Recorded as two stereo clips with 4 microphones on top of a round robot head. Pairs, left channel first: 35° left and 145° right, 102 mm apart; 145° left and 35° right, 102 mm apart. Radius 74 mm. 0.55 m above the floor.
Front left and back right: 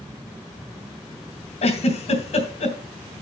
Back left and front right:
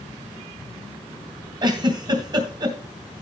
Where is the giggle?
15° left, 2.5 m.